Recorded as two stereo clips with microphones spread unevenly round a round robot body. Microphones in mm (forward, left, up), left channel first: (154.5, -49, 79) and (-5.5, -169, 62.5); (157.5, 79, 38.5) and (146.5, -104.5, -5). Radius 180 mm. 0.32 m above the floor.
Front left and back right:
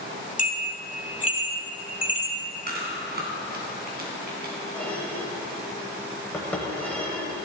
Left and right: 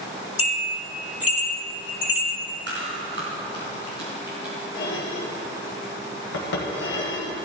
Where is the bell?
15° right, 2.5 m.